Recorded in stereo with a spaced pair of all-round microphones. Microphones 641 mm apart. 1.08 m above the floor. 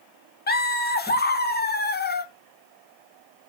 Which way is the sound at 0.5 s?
15° left (ahead or behind).